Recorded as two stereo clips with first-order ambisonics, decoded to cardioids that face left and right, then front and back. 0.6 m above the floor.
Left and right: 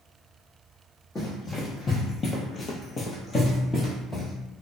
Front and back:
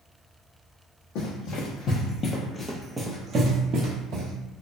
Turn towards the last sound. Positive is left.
turn(degrees=170)